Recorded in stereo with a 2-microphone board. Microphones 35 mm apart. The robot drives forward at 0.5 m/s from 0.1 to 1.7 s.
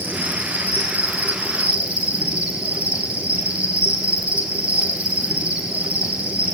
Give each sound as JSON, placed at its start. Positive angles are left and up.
{"t": 0.0, "sound": "an insect", "side_deg": -65, "distance_m": 1.3}